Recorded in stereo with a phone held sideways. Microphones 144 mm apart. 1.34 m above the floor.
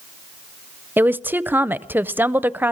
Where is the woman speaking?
15° right (ahead or behind), 0.6 m.